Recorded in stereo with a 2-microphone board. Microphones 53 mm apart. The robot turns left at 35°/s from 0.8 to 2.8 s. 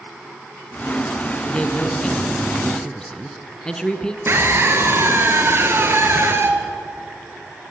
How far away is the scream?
About 2.5 m.